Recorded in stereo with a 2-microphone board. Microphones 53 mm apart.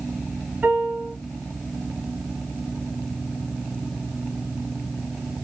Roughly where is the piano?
Right.